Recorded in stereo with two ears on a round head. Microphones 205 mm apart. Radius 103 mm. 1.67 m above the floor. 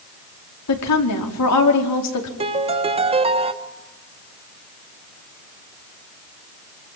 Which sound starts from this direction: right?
A piano, at 2.4 s.